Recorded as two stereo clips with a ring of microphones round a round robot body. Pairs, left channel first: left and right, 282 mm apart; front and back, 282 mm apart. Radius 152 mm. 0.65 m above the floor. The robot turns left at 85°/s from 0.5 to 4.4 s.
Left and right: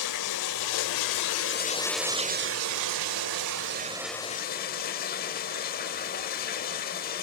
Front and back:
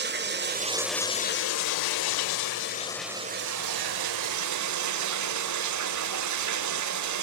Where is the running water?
125° left, 1.2 m; by 7.2 s 155° left, 1.2 m.